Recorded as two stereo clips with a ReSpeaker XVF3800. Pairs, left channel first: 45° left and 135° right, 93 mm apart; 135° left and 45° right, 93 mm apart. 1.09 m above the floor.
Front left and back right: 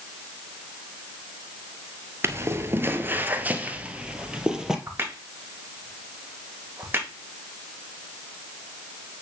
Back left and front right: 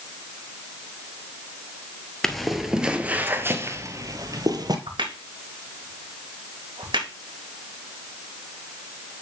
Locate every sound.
2.2 s footsteps: 145° right, 1.2 m; by 4.8 s 55° right, 1.5 m
4.9 s a crack: 70° right, 1.9 m